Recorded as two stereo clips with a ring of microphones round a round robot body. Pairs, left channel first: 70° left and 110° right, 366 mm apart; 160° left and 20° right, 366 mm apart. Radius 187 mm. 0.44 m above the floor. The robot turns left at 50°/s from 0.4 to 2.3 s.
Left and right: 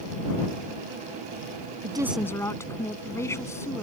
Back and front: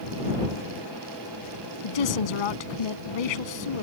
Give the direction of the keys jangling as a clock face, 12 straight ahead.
I don't hear keys jangling.